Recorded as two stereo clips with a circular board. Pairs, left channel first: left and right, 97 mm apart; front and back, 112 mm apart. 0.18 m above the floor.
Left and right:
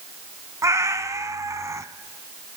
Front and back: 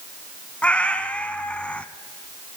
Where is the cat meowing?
70° right, 0.8 m.